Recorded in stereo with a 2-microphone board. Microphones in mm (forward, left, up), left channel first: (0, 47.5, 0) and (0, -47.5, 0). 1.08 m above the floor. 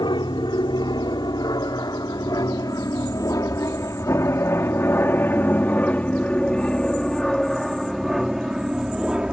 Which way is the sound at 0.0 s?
55° left (ahead or behind).